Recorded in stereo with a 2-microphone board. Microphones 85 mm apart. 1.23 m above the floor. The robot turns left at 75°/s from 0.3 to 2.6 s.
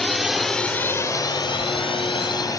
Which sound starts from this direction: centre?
A drone, at 0.0 s.